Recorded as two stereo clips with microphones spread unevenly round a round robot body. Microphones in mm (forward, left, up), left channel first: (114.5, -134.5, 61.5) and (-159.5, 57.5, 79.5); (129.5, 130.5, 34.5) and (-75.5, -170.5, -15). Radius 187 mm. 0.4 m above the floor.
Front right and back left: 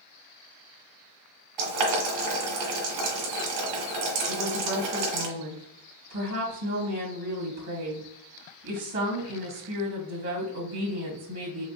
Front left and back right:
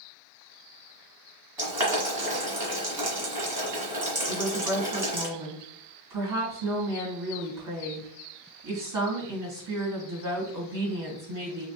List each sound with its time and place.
1.6 s boiling: 150° left, 2 m
4.3 s a woman speaking: 165° right, 2.5 m